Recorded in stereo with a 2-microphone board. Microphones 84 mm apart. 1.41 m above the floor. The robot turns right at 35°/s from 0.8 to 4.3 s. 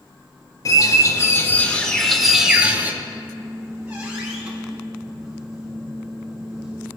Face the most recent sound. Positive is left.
turn(degrees=-5)